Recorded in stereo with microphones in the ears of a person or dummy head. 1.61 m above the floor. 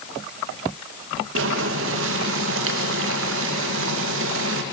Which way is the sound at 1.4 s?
80° right.